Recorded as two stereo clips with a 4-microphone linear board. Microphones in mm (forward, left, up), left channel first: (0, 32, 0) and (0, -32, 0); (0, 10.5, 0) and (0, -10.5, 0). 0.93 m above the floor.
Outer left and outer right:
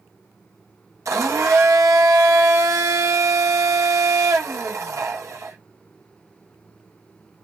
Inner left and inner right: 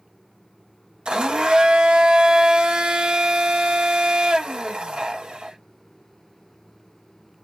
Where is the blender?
50° right (ahead or behind), 1.0 m.